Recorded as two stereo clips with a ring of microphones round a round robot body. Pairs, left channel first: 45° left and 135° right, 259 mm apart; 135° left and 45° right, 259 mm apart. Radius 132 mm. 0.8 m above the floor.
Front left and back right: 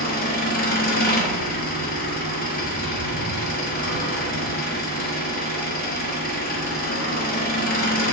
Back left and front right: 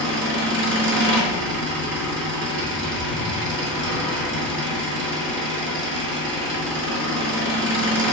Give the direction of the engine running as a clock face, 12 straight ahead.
12 o'clock.